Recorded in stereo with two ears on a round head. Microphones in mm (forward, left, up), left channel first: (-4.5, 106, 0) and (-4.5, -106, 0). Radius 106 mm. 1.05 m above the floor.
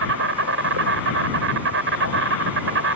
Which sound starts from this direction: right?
An insect, at 0.0 s.